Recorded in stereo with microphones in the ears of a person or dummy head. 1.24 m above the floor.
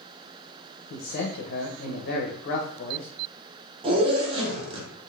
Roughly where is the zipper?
Right.